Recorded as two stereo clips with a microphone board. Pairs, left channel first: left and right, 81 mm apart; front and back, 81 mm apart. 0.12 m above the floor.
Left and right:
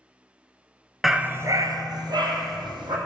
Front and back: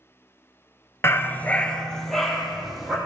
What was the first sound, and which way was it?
A dog barking, straight ahead.